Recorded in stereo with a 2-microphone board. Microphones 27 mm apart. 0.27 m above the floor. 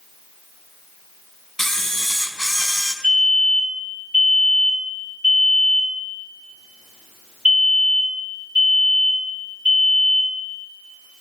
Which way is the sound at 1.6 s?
15° left (ahead or behind).